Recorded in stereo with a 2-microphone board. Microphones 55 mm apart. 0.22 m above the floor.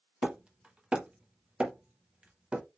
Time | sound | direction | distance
0.2 | hammering | 20° right (ahead or behind) | 0.7 m